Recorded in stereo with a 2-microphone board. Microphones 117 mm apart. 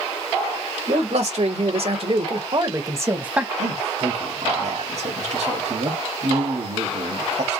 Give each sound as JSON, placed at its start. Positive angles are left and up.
{"t": 0.9, "sound": "a man speaking", "side_deg": -65, "distance_m": 2.0}
{"t": 3.6, "sound": "a man speaking", "side_deg": -65, "distance_m": 1.6}